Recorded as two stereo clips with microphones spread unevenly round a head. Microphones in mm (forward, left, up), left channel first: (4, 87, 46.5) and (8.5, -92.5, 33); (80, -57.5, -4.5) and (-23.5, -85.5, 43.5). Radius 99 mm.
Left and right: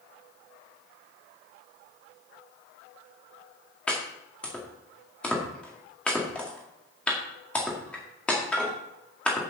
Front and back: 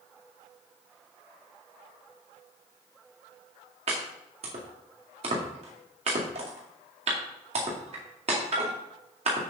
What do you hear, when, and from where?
3.9 s chopping: 175° left, 2.0 m